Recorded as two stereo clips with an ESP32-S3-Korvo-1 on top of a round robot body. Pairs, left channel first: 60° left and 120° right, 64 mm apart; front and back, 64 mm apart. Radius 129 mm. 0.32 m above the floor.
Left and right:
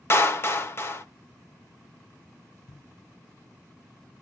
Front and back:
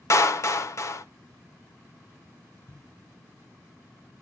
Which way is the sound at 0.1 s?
20° left.